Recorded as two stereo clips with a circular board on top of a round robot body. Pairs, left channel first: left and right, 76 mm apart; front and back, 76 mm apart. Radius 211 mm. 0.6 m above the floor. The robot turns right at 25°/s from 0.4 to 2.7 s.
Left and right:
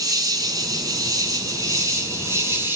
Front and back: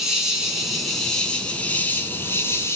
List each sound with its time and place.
0.0 s an insect: 95° right, 2.5 m; by 2.8 s 40° right, 2.5 m